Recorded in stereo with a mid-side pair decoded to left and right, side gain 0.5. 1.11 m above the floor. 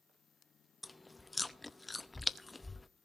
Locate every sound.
0.8 s chewing: 20° left, 0.7 m